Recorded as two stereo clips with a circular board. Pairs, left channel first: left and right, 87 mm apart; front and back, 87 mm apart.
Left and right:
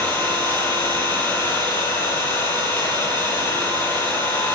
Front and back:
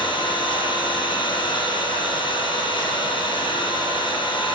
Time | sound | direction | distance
0.0 | an engine running | 20° left | 9 m